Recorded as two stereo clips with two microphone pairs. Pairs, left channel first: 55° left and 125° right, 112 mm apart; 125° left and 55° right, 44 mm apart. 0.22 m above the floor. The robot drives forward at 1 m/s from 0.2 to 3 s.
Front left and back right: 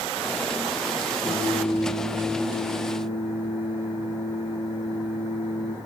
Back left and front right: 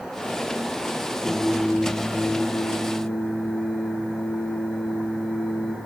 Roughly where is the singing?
Ahead left.